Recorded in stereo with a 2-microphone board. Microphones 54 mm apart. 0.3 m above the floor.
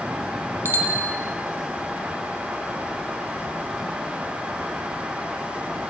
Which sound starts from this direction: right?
A bicycle bell, at 0.7 s.